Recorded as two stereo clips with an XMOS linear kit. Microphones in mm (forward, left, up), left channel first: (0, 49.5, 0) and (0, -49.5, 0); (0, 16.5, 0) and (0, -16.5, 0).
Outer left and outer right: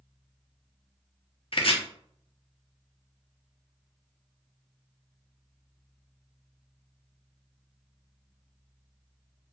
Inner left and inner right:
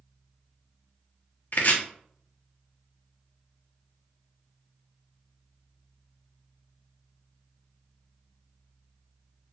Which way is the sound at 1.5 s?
60° left (ahead or behind).